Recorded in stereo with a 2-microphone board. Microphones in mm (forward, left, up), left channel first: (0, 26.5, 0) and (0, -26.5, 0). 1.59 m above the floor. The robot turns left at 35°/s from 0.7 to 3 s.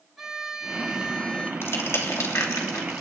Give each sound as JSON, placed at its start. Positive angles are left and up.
{"t": 0.2, "sound": "a violin", "side_deg": -5, "distance_m": 1.5}
{"t": 1.6, "sound": "crushing", "side_deg": 55, "distance_m": 2.5}